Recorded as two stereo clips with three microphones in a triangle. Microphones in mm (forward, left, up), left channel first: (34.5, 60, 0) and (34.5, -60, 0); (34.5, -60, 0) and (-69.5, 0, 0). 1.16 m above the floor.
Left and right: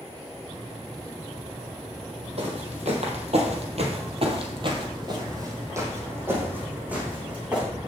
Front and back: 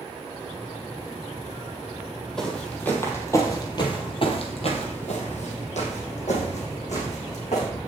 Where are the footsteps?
115° right, 2.5 m; by 7.7 s 10° right, 4.5 m.